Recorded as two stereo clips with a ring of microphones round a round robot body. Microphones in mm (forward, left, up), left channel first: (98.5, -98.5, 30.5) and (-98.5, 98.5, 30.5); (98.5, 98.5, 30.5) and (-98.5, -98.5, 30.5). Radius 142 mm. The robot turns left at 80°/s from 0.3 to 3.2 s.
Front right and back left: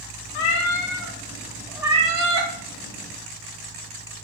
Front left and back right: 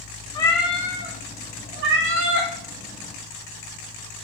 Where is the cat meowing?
25° right, 0.6 m; by 2.5 s 160° left, 0.6 m.